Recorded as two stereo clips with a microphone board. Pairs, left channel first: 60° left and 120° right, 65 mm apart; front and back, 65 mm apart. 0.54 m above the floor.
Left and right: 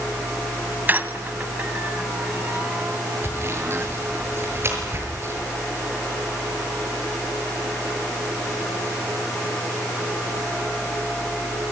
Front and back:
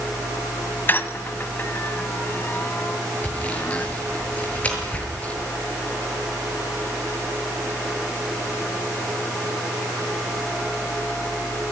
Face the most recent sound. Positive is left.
turn(degrees=-70)